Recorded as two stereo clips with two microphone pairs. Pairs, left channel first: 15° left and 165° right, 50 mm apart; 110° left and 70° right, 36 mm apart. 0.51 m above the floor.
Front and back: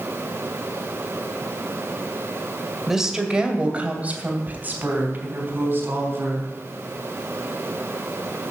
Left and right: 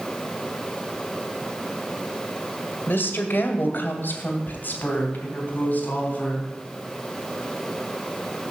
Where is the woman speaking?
115° left, 1.8 m; by 6.5 s 155° left, 4.5 m.